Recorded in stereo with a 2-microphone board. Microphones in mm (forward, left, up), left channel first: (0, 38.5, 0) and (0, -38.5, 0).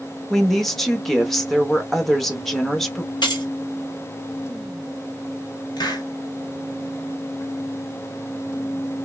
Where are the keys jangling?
75° left (ahead or behind), 0.8 m.